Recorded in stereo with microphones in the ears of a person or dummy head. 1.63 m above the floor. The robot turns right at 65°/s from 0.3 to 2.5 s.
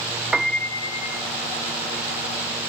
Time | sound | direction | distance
0.3 | a piano | 5° right | ?